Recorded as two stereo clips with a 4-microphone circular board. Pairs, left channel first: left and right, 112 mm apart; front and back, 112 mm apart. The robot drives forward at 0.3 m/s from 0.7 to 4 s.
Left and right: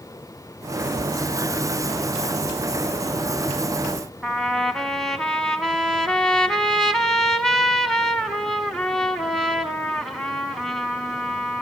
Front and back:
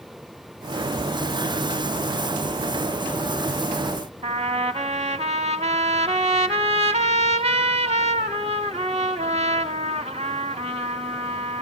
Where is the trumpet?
175° left, 0.8 m.